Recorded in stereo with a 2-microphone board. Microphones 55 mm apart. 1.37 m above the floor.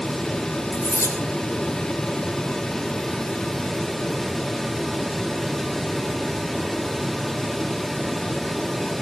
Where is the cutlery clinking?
80° right, 3.5 m.